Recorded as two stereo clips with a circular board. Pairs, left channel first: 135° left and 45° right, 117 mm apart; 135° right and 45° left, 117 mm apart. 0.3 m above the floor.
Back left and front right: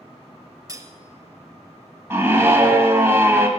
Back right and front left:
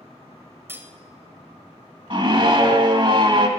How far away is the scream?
About 1.5 m.